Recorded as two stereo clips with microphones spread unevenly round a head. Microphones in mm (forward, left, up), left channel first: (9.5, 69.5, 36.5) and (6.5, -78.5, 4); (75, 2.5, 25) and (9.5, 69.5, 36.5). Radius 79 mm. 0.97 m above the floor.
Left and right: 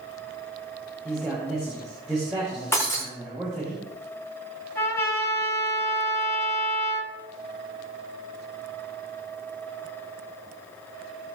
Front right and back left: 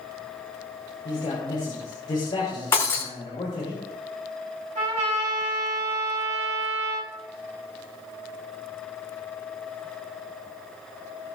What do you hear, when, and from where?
1.1 s a man speaking: 5° right, 5.5 m
2.7 s breaking glass: 15° left, 5.5 m
4.8 s a trumpet: 165° left, 4 m